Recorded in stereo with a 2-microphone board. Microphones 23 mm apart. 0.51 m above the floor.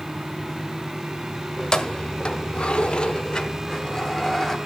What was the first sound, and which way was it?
Keys jangling, 25° left (ahead or behind).